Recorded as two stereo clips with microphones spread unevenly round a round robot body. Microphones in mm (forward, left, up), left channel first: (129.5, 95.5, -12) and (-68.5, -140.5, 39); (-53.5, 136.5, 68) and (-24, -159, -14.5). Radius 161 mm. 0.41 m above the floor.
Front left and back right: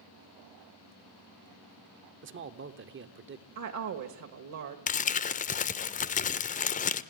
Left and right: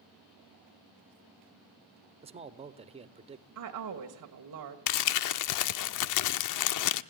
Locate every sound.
2.2 s a man speaking: 90° right, 1.0 m
3.5 s a woman speaking: 95° right, 1.5 m
4.9 s crumpling: 90° left, 0.5 m